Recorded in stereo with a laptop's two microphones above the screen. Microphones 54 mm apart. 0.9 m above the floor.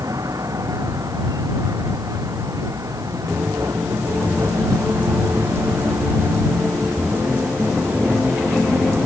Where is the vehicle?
85° right.